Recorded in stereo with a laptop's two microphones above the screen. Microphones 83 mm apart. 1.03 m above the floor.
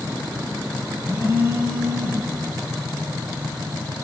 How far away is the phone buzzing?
About 8.5 m.